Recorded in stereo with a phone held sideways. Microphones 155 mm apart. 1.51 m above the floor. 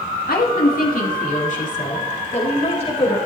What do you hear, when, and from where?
0.3 s a woman speaking: 75° left (ahead or behind), 3 m; by 3.2 s 40° left (ahead or behind), 5.5 m